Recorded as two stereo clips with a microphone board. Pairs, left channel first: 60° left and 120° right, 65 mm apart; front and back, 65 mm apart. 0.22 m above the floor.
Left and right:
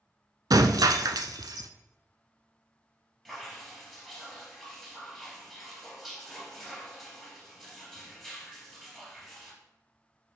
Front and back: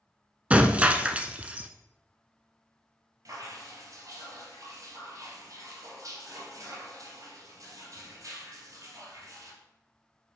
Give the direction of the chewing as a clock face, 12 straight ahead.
I don't hear chewing.